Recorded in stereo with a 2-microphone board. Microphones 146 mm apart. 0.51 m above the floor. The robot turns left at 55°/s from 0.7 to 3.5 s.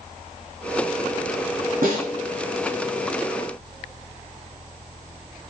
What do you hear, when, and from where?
1.8 s a snare drum: 75° right (ahead or behind), 1.0 m; by 2.1 s 85° right, 1.0 m